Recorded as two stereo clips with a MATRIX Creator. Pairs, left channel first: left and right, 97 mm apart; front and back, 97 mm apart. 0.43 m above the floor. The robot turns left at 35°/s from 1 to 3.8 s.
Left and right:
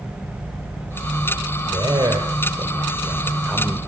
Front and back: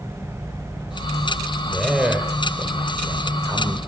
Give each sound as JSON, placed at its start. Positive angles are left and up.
{"t": 1.7, "sound": "a man speaking", "azimuth_deg": -90, "distance_m": 1.9}